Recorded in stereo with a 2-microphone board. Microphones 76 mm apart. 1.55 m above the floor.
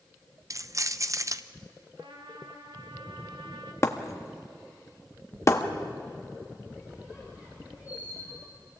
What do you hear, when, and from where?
0.5 s keys jangling: 45° right (ahead or behind), 0.7 m
2.0 s a trumpet: 85° right, 2.5 m
3.8 s breaking glass: 40° left (ahead or behind), 1.4 m
6.7 s a squeak: 25° right (ahead or behind), 7.5 m